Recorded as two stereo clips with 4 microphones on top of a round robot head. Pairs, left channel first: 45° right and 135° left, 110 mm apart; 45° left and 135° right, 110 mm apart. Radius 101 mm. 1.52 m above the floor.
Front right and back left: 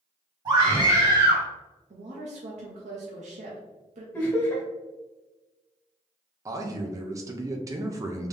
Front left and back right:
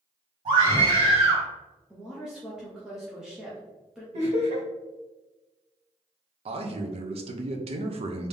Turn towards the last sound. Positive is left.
turn(degrees=-165)